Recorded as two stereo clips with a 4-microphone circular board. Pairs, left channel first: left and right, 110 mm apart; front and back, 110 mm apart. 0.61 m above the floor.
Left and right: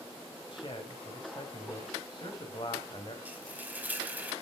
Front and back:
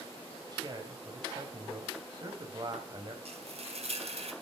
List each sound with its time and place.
0.5 s a man speaking: 130° left, 3 m
3.2 s frying: 165° right, 2.5 m